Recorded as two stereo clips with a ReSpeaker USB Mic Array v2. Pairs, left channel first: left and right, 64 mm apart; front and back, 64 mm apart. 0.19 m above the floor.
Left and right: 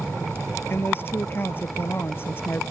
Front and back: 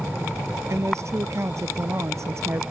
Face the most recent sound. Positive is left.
turn(degrees=140)